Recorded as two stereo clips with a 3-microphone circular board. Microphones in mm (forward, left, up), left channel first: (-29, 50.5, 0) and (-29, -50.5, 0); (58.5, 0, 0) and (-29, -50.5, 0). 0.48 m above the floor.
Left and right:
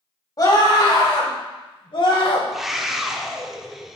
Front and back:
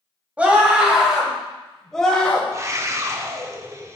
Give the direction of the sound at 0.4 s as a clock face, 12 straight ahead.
7 o'clock.